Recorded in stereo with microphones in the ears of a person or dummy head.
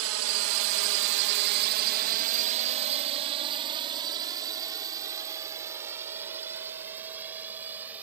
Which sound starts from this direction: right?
A drone, at 0.0 s.